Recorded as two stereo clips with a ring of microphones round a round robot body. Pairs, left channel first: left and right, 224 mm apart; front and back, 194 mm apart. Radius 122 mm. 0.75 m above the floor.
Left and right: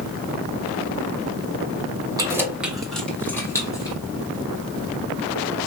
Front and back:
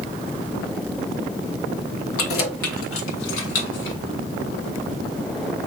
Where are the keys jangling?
15° right, 1.3 m; by 4.0 s 15° left, 2 m.